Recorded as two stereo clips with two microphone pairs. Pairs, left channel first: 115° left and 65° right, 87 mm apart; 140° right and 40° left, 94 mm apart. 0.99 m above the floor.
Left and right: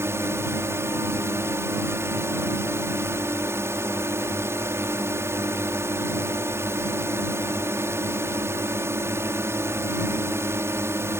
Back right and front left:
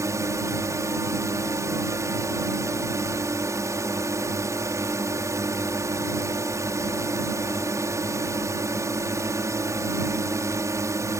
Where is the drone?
10° right.